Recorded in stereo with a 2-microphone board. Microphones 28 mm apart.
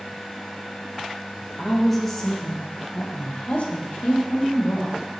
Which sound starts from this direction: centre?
A woman speaking, at 1.6 s.